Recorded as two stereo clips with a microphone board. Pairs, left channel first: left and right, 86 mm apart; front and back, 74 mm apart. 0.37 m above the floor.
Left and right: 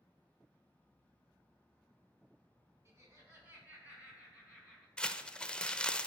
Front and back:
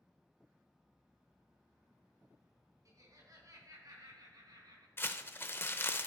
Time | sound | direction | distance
2.9 | laughter | 145° right | 3.5 m
5.0 | crumpling | 20° left | 0.5 m